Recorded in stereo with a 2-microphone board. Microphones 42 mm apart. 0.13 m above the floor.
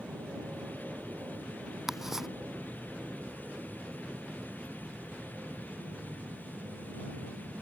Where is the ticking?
10° right (ahead or behind).